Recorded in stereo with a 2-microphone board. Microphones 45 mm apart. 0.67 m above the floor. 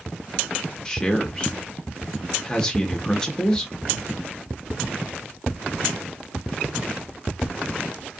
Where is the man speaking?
15° left (ahead or behind), 1.1 m.